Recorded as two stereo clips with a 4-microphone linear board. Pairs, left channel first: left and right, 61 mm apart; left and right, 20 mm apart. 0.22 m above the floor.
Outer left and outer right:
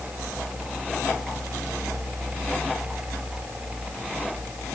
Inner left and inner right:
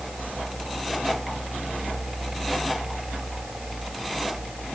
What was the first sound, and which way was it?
Only background noise.